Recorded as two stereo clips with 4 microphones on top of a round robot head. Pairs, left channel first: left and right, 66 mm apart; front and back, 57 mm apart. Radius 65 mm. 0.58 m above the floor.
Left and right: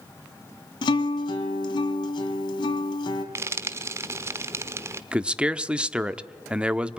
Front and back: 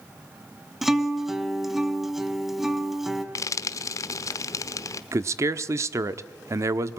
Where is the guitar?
90° left, 2.5 m.